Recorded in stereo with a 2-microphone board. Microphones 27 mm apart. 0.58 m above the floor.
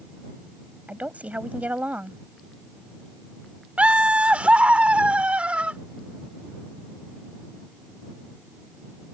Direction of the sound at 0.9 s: 75° right (ahead or behind).